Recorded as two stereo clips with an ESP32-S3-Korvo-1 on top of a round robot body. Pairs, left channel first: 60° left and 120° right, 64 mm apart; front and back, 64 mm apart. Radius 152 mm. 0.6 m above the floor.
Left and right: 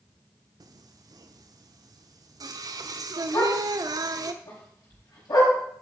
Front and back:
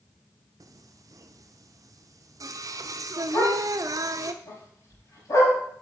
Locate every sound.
0.6 s singing: 145° right, 0.7 m
3.3 s a dog barking: 40° left, 5 m